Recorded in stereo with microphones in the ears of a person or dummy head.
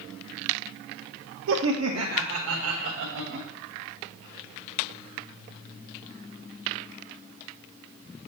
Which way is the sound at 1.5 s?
70° right (ahead or behind).